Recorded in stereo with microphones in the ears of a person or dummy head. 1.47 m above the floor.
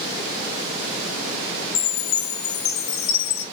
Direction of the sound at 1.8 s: 90° left.